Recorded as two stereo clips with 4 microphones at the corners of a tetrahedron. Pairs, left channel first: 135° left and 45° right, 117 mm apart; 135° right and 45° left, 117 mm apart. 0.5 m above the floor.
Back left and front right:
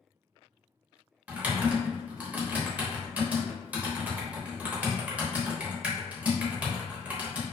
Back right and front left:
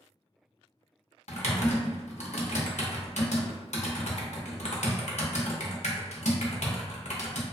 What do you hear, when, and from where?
1.3 s typing on a keyboard: 120° right, 0.6 m